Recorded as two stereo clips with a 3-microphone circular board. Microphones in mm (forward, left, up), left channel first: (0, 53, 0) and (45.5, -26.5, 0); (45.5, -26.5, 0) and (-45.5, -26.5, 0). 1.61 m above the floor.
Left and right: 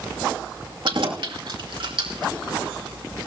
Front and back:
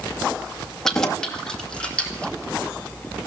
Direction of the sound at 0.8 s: 85° right.